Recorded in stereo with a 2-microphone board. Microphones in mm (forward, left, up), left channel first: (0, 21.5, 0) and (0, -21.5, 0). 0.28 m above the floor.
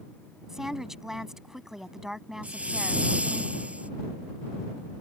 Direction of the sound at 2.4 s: 30° right (ahead or behind).